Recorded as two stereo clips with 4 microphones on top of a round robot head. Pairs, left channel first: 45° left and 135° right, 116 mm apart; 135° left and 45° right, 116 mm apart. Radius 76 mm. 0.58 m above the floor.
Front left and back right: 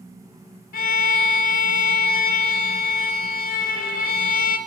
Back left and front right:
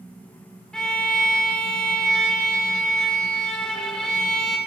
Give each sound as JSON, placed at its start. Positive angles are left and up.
{"t": 0.7, "sound": "a violin", "azimuth_deg": 50, "distance_m": 0.7}